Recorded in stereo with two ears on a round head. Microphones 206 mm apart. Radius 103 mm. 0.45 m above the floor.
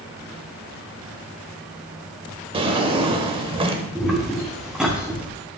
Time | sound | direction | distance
2.5 | a drawer | 25° right (ahead or behind) | 0.9 m
4.0 | footsteps | centre (ahead or behind) | 2 m